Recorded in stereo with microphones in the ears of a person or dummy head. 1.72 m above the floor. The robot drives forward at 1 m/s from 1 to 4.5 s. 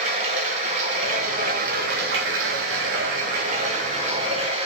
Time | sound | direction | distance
0.0 | running water | 40° right (ahead or behind) | 2 m